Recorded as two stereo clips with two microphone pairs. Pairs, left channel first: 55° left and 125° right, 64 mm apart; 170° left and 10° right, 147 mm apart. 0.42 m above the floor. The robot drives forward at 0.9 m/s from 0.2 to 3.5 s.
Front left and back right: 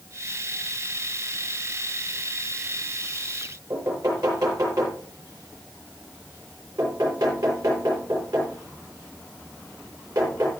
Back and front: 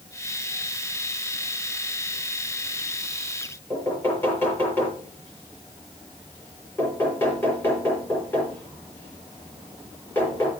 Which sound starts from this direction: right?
Knocking, at 3.7 s.